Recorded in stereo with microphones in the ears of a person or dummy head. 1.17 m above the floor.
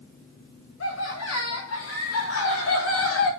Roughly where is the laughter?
Left.